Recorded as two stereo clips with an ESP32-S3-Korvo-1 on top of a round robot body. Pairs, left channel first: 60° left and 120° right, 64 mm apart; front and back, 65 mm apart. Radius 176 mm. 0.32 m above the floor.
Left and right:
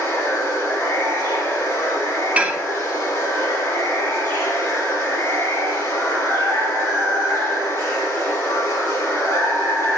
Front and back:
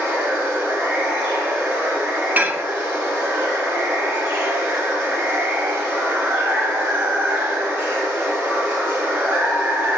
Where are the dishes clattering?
160° right, 0.6 m.